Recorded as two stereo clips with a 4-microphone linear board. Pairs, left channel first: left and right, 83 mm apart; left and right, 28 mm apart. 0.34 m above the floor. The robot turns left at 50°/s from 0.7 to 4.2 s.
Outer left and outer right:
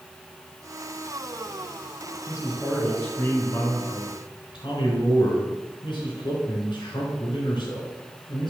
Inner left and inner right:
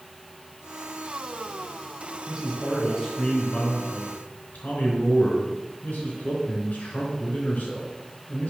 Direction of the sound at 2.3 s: 155° right.